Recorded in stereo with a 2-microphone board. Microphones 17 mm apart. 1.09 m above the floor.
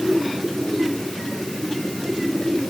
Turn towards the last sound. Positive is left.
No sound to turn to.